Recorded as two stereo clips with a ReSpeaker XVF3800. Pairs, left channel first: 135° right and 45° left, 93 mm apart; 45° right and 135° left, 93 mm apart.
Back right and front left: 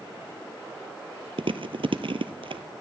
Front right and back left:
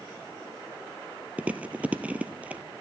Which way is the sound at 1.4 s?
60° left.